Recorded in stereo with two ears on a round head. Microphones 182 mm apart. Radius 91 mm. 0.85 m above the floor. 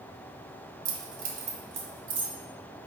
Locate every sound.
0.8 s keys jangling: 45° right (ahead or behind), 0.7 m; by 2.3 s 25° right (ahead or behind), 1.5 m